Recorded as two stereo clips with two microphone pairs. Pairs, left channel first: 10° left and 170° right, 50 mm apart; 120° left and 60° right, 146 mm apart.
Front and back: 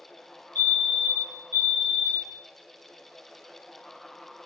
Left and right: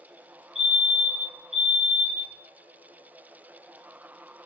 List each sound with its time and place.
0.6 s a fire alarm: 40° right, 3 m